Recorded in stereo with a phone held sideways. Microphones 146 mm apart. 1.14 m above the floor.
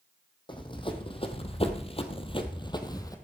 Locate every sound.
0.5 s running footsteps: 35° left (ahead or behind), 2 m; by 3.1 s 25° left (ahead or behind), 1.7 m